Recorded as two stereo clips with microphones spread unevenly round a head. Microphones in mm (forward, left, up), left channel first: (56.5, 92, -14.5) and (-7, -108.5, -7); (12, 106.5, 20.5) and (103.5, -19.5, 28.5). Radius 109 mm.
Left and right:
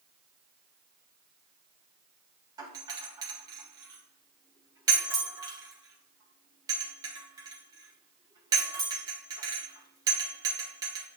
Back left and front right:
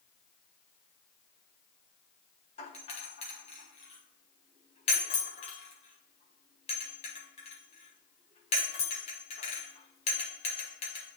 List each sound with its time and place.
2.6 s a doorbell: straight behind, 1.1 m